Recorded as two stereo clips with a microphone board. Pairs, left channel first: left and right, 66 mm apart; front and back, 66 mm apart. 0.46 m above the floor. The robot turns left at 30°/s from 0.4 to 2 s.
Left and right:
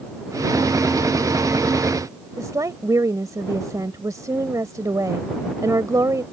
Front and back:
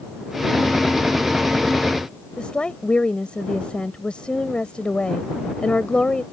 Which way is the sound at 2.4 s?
70° right.